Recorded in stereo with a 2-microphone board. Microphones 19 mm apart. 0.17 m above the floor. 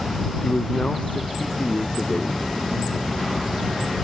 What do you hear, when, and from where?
0.4 s a man speaking: 75° left (ahead or behind)